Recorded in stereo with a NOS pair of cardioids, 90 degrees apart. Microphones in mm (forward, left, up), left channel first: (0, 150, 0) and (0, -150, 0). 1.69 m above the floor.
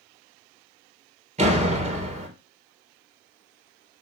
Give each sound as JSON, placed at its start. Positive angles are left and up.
{"t": 1.4, "sound": "a door slam", "azimuth_deg": -25, "distance_m": 4.0}